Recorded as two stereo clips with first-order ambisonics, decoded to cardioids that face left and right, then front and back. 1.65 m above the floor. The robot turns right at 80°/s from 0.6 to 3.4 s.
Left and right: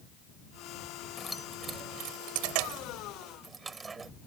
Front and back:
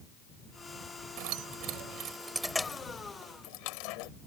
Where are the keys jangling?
165° left; by 4.1 s 20° right.